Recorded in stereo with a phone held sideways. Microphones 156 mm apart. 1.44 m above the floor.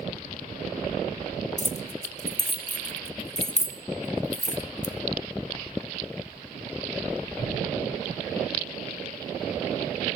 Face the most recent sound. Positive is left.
turn(degrees=50)  # may be behind; listen again after turning